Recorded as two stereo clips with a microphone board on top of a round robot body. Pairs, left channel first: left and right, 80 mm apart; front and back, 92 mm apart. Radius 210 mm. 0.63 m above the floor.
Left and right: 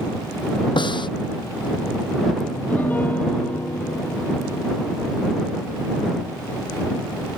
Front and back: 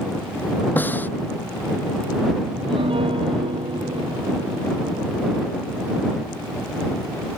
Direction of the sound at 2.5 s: 160° left.